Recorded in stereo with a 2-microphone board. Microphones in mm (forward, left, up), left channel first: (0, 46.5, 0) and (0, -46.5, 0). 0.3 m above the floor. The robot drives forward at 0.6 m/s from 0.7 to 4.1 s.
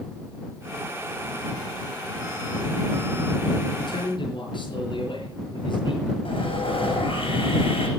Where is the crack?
No crack in this recording.